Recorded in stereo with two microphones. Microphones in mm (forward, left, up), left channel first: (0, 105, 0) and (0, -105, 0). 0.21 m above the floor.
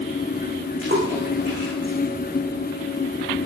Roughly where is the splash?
Right.